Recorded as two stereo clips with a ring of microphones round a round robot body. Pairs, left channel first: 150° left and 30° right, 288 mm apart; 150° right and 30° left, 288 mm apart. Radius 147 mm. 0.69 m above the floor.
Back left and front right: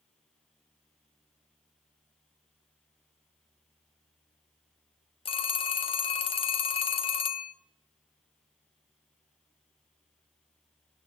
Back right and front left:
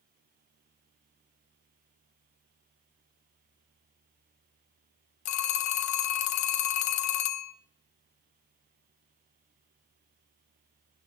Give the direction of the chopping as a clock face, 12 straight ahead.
No chopping in this recording.